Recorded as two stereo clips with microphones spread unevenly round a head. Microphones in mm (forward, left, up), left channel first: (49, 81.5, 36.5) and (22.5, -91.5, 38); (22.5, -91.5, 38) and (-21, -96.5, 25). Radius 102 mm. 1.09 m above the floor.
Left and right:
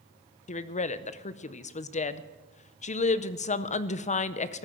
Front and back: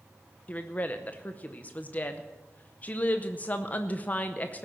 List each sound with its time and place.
0.5 s a woman speaking: 70° left, 0.7 m